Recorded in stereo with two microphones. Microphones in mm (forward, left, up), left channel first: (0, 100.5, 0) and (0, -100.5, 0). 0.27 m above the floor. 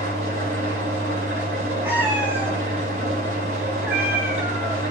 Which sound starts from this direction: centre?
A cat meowing, at 1.8 s.